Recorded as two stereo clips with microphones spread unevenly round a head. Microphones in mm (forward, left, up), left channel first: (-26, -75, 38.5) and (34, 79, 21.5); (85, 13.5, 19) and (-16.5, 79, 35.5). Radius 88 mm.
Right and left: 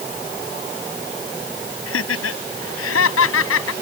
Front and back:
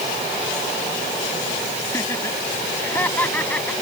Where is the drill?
I don't hear a drill.